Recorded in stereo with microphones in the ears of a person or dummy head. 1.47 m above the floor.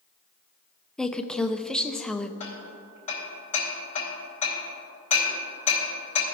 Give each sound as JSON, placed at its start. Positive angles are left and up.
{"t": 1.0, "sound": "a woman speaking", "side_deg": 5, "distance_m": 0.6}
{"t": 2.4, "sound": "hammering", "side_deg": 35, "distance_m": 3.0}